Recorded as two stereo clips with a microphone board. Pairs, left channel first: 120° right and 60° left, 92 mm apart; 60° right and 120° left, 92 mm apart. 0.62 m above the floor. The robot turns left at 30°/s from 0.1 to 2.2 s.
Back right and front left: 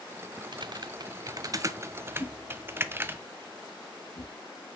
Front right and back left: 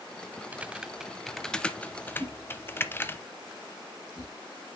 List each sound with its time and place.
0.5 s typing on a keyboard: 50° left, 0.6 m; by 3.2 s straight ahead, 0.6 m
2.2 s a whoosh: 120° right, 3 m